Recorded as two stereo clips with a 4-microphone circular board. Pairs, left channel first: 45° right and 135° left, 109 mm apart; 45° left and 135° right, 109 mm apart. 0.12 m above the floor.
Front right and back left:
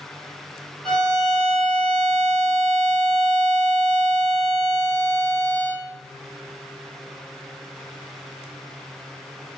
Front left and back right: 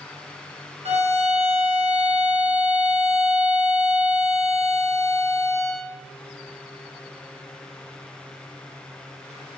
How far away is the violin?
About 0.8 m.